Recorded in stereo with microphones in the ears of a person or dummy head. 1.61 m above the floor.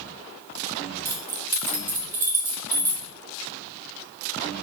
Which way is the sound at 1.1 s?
10° right (ahead or behind).